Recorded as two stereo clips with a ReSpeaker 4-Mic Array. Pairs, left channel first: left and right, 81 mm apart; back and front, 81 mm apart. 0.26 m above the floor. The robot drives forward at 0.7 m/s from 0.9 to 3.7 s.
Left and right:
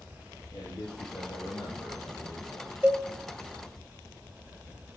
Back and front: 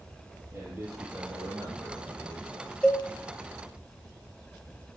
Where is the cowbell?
120° right, 1.5 m; by 3.0 s 135° right, 1.5 m.